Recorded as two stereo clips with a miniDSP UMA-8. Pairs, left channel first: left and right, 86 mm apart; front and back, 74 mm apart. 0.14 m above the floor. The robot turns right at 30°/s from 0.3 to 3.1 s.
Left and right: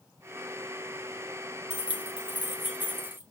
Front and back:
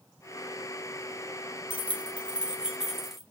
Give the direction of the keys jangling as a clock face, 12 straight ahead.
5 o'clock.